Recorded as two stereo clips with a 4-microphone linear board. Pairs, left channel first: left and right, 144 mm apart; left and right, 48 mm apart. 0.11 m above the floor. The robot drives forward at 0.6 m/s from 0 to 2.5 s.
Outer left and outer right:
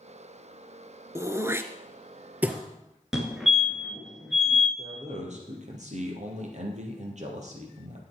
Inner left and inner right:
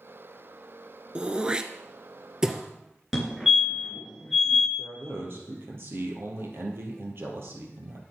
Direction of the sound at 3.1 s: 5° right (ahead or behind).